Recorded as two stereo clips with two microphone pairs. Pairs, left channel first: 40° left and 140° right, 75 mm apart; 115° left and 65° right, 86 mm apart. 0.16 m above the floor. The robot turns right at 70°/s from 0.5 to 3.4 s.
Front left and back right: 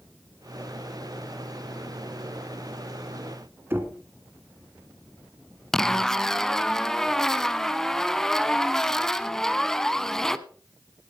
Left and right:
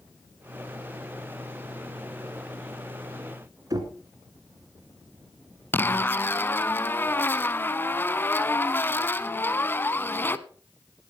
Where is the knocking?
90° right, 1.8 m.